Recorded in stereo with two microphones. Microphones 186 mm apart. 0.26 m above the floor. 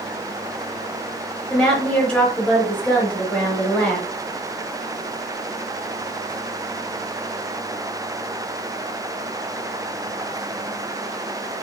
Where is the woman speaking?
5° left (ahead or behind), 0.9 m.